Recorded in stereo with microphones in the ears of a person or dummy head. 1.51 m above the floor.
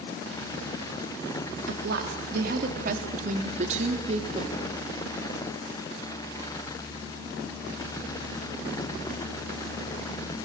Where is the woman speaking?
65° right (ahead or behind), 2.5 m; by 4.5 s 30° right (ahead or behind), 2.5 m.